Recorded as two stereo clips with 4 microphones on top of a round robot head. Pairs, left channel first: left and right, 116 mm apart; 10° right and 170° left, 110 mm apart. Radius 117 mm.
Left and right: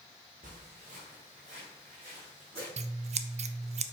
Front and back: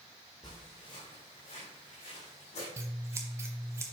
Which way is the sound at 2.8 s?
120° right.